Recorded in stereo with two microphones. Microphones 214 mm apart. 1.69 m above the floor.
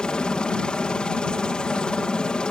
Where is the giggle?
No giggle in this recording.